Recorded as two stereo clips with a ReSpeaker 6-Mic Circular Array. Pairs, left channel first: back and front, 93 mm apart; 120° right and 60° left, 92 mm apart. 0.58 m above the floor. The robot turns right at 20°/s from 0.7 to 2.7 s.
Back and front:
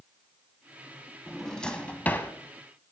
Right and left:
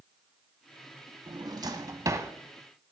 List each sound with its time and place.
1.3 s a drawer: 95° left, 1.0 m; by 2.3 s 115° left, 1.0 m